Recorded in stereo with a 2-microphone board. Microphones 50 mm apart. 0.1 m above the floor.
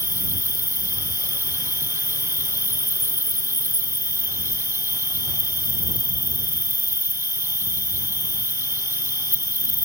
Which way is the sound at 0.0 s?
60° right (ahead or behind).